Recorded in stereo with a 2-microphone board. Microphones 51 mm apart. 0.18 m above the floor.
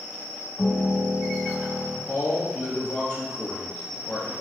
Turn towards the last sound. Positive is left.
turn(degrees=25)  # may be behind; listen again after turning